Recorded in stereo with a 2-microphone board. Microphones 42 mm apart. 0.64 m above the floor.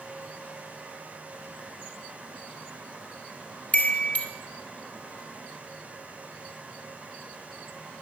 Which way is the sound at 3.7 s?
35° left (ahead or behind).